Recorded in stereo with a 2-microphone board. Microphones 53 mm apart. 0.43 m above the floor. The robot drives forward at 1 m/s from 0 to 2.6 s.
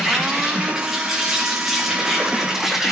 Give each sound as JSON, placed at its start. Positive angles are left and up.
{"t": 0.0, "sound": "an insect", "side_deg": -5, "distance_m": 5.5}